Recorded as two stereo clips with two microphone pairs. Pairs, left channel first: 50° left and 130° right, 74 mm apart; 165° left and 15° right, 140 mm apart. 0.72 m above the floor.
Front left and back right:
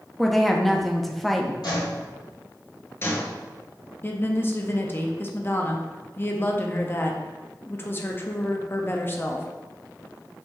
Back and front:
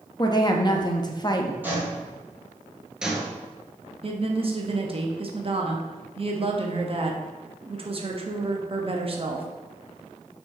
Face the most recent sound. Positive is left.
turn(degrees=10)